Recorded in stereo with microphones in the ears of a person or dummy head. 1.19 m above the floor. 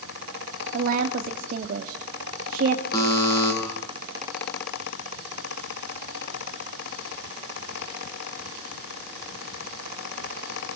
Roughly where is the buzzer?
Left.